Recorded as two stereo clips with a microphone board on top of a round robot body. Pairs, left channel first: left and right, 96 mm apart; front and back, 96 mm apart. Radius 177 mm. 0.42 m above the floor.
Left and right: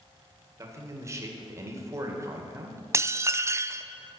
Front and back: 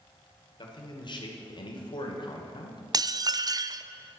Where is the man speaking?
35° right, 2.5 m.